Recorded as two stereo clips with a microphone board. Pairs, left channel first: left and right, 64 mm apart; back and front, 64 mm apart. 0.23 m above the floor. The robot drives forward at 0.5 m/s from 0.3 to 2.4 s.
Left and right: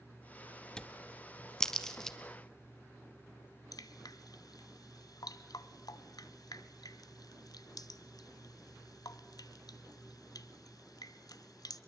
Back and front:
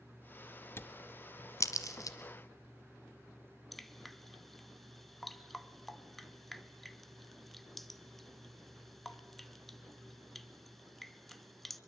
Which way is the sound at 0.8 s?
160° left.